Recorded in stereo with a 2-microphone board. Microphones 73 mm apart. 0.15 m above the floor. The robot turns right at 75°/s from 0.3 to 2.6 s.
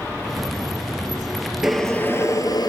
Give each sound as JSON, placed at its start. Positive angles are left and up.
{"t": 1.6, "sound": "boiling", "azimuth_deg": -5, "distance_m": 0.9}